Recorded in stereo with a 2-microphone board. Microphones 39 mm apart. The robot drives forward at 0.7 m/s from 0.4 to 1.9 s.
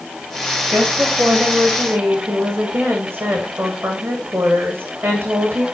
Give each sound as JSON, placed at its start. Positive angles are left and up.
{"t": 0.7, "sound": "a woman speaking", "side_deg": -65, "distance_m": 8.0}